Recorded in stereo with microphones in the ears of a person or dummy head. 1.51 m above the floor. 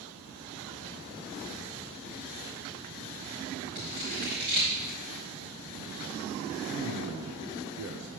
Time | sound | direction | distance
3.8 | scissors | 25° right (ahead or behind) | 1.4 m
6.7 | a man speaking | 75° right (ahead or behind) | 0.8 m